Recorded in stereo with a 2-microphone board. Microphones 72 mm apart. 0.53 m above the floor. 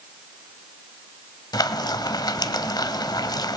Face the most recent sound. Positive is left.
turn(degrees=70)  # may be behind; listen again after turning